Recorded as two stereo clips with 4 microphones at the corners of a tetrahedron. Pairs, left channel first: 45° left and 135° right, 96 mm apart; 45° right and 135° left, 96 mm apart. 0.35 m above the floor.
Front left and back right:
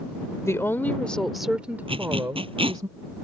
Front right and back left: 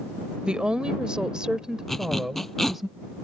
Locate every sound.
0.4 s a woman speaking: 65° left; by 2.9 s 135° right
1.9 s a zipper: 130° right